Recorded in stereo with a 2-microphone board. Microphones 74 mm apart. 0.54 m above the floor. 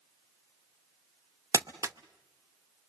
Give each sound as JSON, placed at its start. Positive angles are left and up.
{"t": 1.5, "sound": "crumpling", "side_deg": -45, "distance_m": 0.7}